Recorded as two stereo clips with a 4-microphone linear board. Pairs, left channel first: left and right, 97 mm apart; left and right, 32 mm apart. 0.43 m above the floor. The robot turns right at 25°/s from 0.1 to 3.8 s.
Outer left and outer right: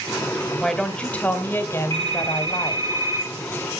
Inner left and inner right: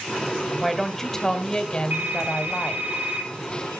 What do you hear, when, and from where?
0.6 s a woman speaking: 5° left, 1.7 m; by 2.9 s 60° left, 1.7 m
1.9 s a phone ringing: 60° right, 7.5 m; by 3.3 s 25° right, 7.5 m